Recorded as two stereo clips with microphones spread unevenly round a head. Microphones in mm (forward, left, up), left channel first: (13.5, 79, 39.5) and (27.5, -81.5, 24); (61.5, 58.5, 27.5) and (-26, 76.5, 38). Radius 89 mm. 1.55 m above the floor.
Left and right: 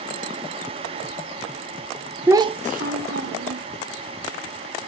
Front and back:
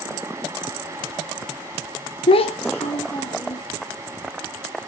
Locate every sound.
2.3 s a child speaking: 5° right, 0.7 m; by 3.7 s 75° right, 1.9 m